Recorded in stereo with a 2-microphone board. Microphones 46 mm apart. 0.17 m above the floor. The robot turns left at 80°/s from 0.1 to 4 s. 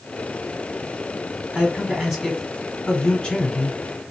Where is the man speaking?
20° right (ahead or behind), 1.3 m; by 4.1 s 20° left (ahead or behind), 1.3 m.